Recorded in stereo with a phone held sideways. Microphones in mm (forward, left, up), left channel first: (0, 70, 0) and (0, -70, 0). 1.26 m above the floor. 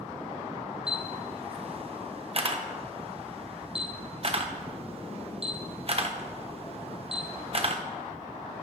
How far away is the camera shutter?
About 1.1 m.